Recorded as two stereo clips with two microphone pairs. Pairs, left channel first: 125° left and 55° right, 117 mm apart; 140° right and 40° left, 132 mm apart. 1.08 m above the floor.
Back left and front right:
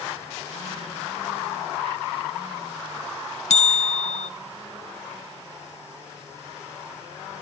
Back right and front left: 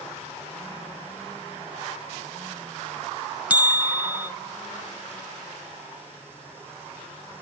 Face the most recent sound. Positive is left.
turn(degrees=120)